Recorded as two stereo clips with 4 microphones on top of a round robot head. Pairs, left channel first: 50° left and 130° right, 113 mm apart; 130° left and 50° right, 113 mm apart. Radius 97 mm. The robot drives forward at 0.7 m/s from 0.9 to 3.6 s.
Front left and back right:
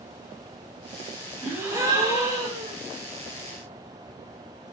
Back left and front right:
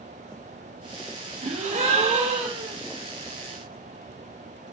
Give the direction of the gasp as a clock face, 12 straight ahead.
2 o'clock.